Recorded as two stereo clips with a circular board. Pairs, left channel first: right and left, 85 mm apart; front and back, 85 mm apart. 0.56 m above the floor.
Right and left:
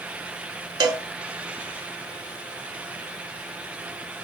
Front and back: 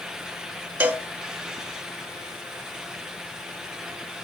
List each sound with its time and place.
0.8 s a cowbell: 115° left, 0.7 m